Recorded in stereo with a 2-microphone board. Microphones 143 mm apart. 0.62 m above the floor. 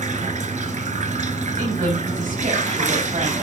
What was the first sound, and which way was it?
Running water, 70° right (ahead or behind).